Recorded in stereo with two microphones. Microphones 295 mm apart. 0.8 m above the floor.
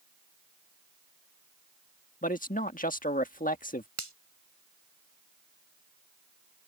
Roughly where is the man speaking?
Left.